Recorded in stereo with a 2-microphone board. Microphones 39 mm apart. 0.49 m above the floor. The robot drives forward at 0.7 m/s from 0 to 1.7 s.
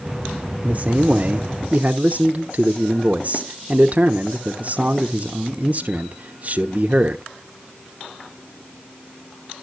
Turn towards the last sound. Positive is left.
turn(degrees=-40)  # may be behind; listen again after turning